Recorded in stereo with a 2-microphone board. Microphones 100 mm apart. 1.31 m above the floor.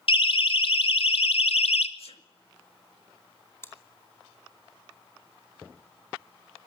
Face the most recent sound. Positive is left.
turn(degrees=25)  # may be behind; listen again after turning